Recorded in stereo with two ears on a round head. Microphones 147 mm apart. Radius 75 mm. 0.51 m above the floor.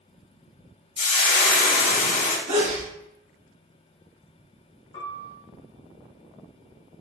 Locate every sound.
1.0 s frying: 50° left (ahead or behind), 0.9 m
2.5 s a sneeze: 55° right (ahead or behind), 1.7 m
4.9 s a piano: 25° left (ahead or behind), 1.1 m